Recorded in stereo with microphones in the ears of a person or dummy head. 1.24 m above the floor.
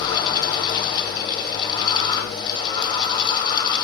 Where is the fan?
25° left (ahead or behind), 3 m.